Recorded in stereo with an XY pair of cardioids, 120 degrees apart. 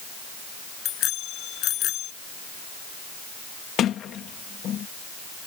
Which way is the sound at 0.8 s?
70° left.